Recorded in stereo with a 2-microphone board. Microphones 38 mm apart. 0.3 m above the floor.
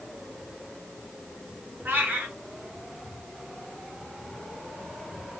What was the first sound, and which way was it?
A cat meowing, 60° right (ahead or behind).